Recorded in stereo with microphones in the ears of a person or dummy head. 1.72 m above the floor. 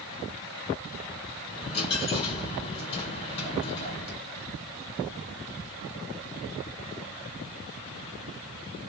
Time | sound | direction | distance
1.5 | a dropped coin | 25° left (ahead or behind) | 2 m